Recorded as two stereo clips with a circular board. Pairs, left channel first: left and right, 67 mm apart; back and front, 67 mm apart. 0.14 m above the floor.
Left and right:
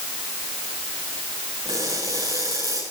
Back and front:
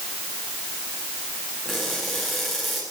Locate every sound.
1.6 s crushing: 90° right, 9 m